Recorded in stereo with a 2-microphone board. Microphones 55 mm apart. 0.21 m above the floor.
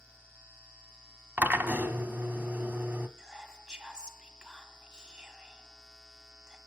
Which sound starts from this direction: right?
A drill, at 1.4 s.